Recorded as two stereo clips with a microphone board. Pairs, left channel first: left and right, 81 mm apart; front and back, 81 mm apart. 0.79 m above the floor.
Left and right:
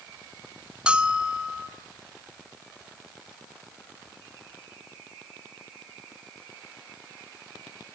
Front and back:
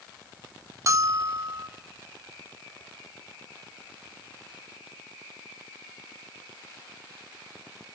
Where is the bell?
160° right, 0.9 m.